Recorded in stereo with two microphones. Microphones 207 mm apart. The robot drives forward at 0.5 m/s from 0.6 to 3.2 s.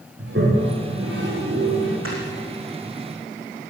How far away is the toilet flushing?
About 7.5 m.